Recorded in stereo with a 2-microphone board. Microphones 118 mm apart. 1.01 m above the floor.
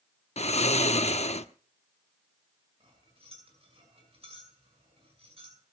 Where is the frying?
No frying in this recording.